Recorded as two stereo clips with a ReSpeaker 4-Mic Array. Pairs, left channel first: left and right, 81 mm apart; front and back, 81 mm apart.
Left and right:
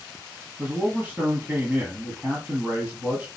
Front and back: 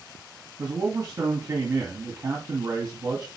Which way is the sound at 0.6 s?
155° right.